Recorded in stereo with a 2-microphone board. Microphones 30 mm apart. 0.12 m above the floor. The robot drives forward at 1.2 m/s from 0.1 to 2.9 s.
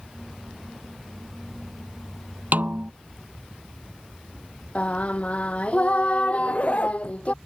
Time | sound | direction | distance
2.5 | a snare drum | 65° right (ahead or behind) | ?
4.8 | singing | 45° left (ahead or behind) | ?
6.3 | a zipper | 45° left (ahead or behind) | ?